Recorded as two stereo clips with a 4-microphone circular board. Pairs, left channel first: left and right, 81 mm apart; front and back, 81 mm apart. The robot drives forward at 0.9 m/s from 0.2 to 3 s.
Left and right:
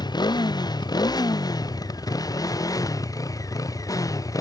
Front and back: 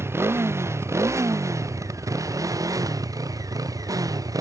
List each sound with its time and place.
0.0 s a motorcycle: 120° left; by 4.4 s 135° left